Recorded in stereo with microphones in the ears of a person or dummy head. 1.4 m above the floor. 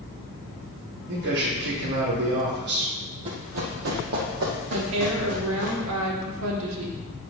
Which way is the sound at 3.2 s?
35° right (ahead or behind).